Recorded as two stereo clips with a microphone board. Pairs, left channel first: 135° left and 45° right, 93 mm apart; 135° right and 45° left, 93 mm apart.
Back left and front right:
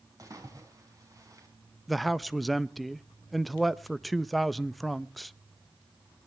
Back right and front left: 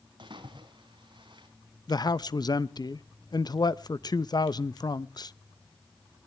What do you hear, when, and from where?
0.2 s a splash: 10° left, 5 m
1.9 s a man speaking: 135° right, 0.6 m